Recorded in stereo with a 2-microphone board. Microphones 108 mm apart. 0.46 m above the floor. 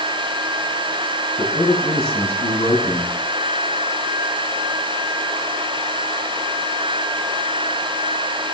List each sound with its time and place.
1.4 s a man speaking: 55° left (ahead or behind), 4.5 m